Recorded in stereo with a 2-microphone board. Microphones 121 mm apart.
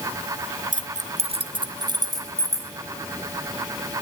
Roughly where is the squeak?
I don't hear a squeak.